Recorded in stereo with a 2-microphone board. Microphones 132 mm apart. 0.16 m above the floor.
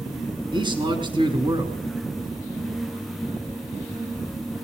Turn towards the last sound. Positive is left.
turn(degrees=-35)  # may be behind; listen again after turning